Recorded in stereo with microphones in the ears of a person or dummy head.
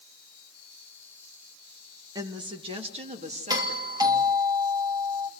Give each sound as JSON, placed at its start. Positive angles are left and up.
{"t": 2.1, "sound": "a woman speaking", "side_deg": -20, "distance_m": 2.0}
{"t": 3.5, "sound": "a doorbell", "side_deg": -15, "distance_m": 2.5}